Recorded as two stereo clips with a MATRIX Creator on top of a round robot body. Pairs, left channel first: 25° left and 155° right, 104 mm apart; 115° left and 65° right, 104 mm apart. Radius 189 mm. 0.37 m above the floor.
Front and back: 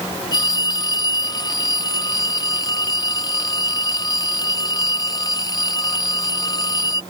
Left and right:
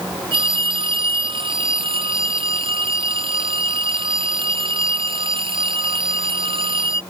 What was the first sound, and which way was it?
A phone ringing, 30° right.